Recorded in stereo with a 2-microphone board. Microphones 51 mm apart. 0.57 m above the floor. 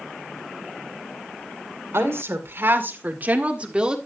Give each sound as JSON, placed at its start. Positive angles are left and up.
{"t": 1.9, "sound": "a woman speaking", "side_deg": -60, "distance_m": 2.0}